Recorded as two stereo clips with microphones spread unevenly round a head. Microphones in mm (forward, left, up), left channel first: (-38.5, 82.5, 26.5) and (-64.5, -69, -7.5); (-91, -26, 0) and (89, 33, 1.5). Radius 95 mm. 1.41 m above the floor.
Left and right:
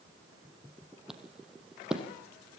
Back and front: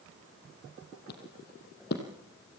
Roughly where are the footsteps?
Behind.